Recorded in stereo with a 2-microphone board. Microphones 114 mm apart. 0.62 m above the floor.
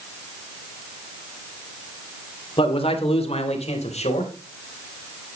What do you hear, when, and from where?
2.6 s a man speaking: 45° left (ahead or behind), 2.5 m; by 4.3 s 65° left (ahead or behind), 4 m